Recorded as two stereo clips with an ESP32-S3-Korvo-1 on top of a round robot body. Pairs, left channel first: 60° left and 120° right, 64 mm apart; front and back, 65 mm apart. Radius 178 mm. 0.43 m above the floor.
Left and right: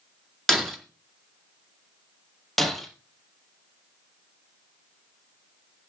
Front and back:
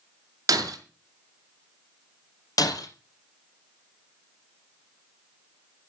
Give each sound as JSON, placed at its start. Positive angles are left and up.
{"t": 0.5, "sound": "breaking glass", "azimuth_deg": 145, "distance_m": 4.5}
{"t": 2.6, "sound": "breaking glass", "azimuth_deg": -30, "distance_m": 3.0}